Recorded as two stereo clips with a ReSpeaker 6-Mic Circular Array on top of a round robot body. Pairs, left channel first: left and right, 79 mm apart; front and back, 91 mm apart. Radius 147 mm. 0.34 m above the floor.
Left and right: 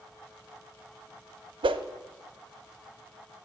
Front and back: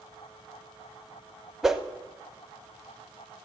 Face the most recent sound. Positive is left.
turn(degrees=-95)